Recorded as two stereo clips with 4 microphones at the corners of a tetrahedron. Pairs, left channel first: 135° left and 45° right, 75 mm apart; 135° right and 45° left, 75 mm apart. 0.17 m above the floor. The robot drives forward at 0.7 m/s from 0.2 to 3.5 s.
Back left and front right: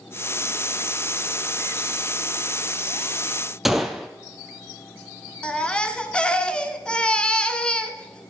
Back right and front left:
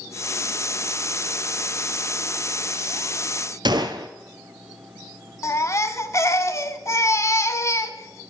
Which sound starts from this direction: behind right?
A baby crying, at 5.4 s.